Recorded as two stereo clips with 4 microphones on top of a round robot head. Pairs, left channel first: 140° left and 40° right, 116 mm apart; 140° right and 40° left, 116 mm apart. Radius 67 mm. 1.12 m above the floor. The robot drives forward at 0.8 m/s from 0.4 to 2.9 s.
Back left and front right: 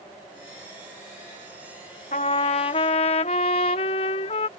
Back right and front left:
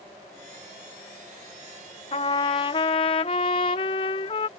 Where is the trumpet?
175° left.